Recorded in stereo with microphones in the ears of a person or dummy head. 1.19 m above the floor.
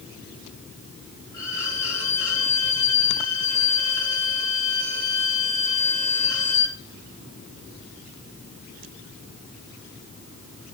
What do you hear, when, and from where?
1.3 s a violin: 20° left (ahead or behind), 8.5 m